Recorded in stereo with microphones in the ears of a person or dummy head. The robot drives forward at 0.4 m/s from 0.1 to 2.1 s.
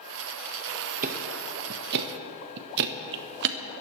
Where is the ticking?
45° right (ahead or behind), 1.3 m; by 3.6 s 60° right (ahead or behind), 1.0 m.